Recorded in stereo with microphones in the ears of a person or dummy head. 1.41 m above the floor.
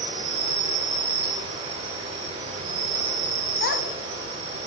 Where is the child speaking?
60° left (ahead or behind), 1.2 m.